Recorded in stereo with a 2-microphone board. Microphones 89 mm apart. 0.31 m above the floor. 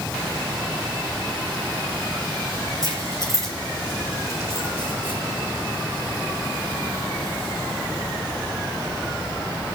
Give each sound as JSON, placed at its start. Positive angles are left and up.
{"t": 2.8, "sound": "keys jangling", "side_deg": -40, "distance_m": 4.5}